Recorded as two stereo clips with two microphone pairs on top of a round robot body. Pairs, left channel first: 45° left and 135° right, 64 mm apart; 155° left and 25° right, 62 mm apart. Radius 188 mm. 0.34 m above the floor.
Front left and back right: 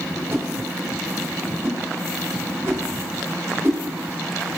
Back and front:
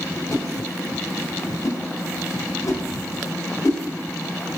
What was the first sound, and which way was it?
A whoosh, 175° left.